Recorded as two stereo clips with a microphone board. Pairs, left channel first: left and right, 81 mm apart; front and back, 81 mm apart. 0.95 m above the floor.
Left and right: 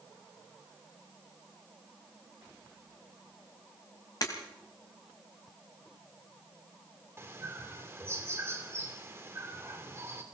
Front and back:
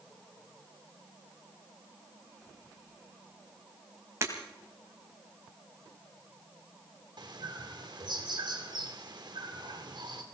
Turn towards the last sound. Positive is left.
turn(degrees=-150)